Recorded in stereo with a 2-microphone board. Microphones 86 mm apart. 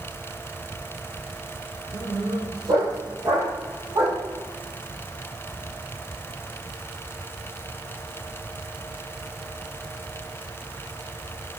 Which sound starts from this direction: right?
A dog barking, at 1.9 s.